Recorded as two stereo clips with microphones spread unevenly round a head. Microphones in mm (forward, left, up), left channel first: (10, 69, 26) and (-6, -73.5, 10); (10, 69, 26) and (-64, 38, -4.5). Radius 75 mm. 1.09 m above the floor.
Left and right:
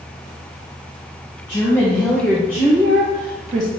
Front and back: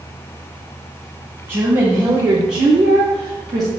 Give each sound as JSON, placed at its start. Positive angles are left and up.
{"t": 1.5, "sound": "a woman speaking", "azimuth_deg": 160, "distance_m": 1.0}